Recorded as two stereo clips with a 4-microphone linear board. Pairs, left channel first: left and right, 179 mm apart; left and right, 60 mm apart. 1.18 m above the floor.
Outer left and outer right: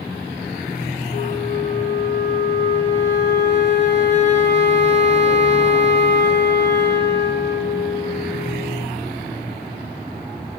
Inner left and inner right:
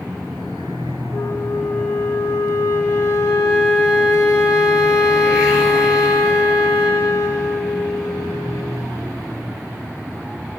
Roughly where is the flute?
Left.